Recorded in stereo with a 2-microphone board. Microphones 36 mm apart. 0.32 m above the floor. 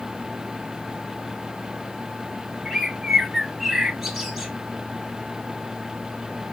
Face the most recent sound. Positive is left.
turn(degrees=-5)  # may be behind; listen again after turning